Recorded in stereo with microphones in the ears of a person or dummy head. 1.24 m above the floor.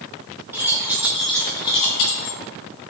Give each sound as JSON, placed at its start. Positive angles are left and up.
{"t": 0.5, "sound": "keys jangling", "side_deg": -10, "distance_m": 1.5}